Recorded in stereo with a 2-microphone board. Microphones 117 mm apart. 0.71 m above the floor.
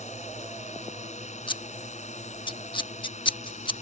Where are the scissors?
45° left (ahead or behind).